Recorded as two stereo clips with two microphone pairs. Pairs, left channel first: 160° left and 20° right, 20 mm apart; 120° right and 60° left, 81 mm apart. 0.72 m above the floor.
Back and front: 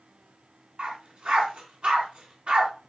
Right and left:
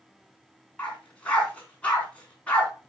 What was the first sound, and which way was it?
A dog barking, 45° right.